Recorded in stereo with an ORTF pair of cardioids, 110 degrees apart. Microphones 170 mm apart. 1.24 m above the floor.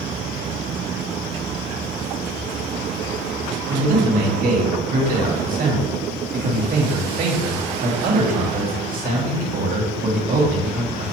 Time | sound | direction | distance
3.7 | a man speaking | 50° right | 2.5 m